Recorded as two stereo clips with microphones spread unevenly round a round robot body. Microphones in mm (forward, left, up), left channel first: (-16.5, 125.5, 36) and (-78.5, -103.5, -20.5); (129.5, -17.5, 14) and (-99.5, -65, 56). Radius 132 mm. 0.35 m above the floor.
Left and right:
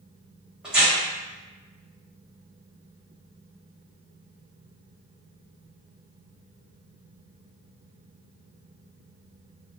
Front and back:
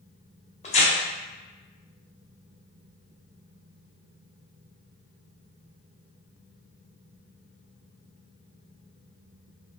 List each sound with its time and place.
0.6 s tearing paper: 30° right, 0.8 m